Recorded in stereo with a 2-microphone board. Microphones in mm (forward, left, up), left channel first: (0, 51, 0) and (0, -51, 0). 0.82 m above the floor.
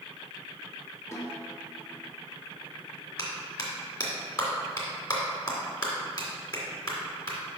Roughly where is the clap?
Left.